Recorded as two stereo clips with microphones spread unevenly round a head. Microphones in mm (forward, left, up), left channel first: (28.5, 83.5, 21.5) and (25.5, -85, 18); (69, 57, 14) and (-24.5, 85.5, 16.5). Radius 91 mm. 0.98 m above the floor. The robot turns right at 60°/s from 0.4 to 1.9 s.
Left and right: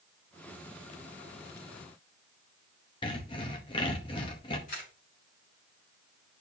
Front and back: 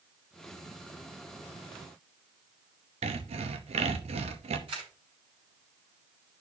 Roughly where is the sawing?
Behind left.